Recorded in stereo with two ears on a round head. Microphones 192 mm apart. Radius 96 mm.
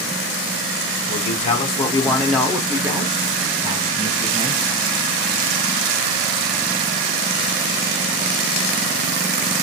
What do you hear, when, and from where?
1.1 s a man speaking: 35° left (ahead or behind), 1.1 m; by 4.7 s 35° right (ahead or behind), 2 m